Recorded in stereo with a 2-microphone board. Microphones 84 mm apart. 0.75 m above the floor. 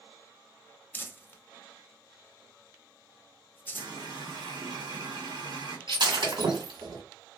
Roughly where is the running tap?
Right.